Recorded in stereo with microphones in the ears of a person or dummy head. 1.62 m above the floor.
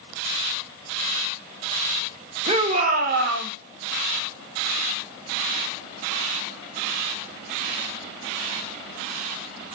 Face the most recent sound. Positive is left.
turn(degrees=-70)  # may be behind; listen again after turning